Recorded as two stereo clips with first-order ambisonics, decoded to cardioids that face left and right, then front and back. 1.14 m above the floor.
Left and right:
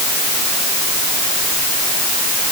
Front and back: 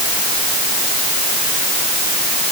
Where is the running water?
I don't hear running water.